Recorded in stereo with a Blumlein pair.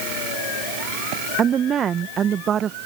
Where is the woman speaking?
25° right.